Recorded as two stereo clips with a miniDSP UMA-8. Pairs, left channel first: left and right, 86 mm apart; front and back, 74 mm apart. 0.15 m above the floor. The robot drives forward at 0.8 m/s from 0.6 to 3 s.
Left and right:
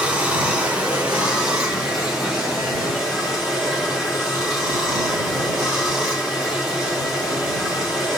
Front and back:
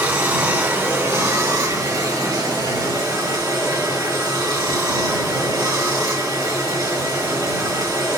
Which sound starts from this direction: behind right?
Running water, at 0.0 s.